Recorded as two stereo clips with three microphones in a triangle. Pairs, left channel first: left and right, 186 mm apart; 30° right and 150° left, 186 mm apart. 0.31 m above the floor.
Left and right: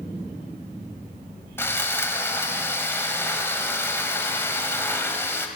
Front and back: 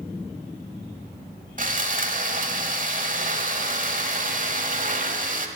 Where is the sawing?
160° left, 1.3 m.